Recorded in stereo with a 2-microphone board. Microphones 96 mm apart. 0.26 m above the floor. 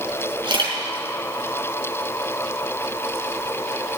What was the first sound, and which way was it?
A camera shutter, 55° right (ahead or behind).